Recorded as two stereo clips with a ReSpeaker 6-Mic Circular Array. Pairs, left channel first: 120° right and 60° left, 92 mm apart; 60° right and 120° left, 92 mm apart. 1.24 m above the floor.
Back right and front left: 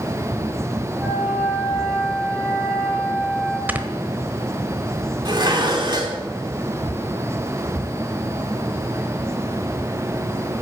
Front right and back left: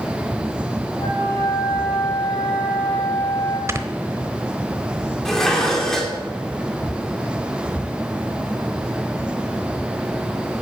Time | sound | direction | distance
1.0 | a flute | straight ahead | 4 m
3.7 | snoring | 115° left | 1.1 m
5.2 | dishes clattering | 25° left | 2.5 m